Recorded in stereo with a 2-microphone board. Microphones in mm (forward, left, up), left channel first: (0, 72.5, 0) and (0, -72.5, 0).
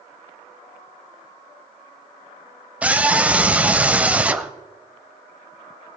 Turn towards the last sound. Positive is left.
turn(degrees=-10)  # may be behind; listen again after turning